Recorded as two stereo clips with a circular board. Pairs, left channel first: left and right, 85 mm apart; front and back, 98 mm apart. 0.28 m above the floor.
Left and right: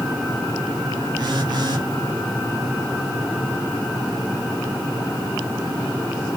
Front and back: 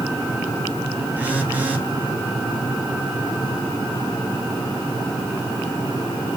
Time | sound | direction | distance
1.2 | a phone buzzing | 110° right | 0.7 m